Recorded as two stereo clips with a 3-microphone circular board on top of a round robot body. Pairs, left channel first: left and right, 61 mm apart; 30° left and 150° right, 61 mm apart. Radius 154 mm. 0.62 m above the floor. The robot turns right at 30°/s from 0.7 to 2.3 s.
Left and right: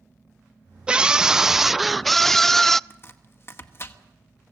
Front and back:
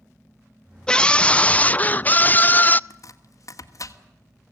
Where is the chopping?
50° left, 1.9 m.